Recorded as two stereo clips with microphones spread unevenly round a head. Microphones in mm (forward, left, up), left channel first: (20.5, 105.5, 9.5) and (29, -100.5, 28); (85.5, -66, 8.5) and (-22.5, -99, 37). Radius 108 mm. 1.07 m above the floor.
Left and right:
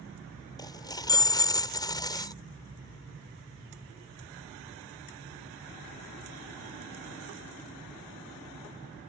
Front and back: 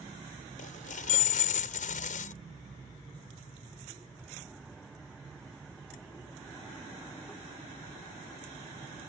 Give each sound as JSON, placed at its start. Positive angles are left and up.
{"t": 0.6, "sound": "a dropped coin", "azimuth_deg": 20}